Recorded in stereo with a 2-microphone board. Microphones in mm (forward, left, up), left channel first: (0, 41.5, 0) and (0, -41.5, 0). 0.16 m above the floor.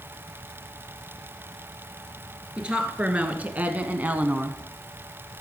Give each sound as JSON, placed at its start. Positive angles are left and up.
{"t": 2.6, "sound": "a woman speaking", "side_deg": -15, "distance_m": 2.0}